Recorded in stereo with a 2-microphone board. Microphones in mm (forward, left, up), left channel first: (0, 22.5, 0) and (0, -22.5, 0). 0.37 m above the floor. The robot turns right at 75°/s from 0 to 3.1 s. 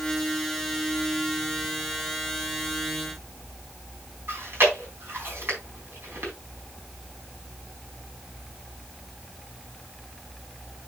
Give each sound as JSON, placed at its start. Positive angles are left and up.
{"t": 4.3, "sound": "chewing", "side_deg": -55, "distance_m": 3.5}